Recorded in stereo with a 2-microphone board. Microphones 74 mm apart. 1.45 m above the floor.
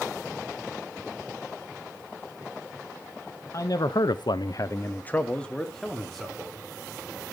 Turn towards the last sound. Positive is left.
turn(degrees=0)  # may be behind; listen again after turning